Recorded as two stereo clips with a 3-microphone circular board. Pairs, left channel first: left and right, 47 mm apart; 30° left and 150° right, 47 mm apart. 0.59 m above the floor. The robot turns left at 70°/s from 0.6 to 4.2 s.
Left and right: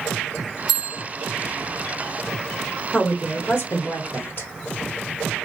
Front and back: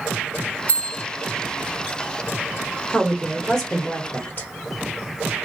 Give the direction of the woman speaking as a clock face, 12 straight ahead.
7 o'clock.